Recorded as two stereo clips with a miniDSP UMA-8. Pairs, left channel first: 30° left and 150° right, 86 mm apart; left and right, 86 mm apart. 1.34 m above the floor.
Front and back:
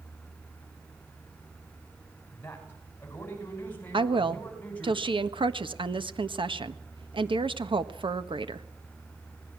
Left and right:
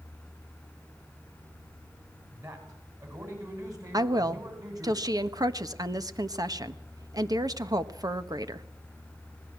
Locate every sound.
2.3 s a man speaking: 35° right, 7.5 m; by 4.9 s 40° right, 9 m
3.9 s a woman speaking: 135° right, 1.4 m